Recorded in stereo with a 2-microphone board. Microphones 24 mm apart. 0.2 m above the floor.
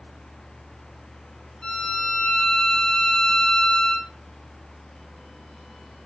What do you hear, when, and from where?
1.6 s a violin: 45° left (ahead or behind), 1.0 m